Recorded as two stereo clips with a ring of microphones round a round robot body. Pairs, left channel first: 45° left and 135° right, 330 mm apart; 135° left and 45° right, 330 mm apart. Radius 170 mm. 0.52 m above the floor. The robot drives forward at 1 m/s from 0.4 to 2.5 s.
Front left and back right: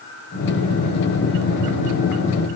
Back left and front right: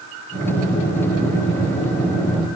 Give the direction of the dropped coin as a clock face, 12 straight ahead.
No dropped coin in this recording.